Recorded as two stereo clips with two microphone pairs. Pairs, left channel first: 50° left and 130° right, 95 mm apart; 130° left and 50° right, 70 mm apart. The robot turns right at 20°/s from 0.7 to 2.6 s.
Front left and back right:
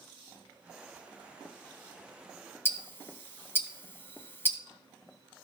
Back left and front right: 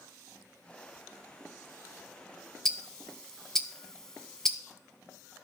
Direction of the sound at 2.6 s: 60° left.